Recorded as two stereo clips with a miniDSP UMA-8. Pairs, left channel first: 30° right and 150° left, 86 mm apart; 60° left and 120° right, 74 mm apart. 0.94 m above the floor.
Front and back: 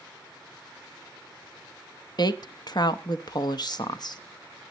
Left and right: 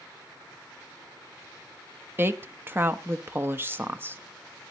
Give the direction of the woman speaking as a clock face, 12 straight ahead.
2 o'clock.